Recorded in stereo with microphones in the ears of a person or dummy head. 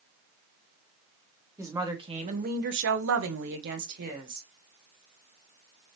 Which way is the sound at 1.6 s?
10° right (ahead or behind).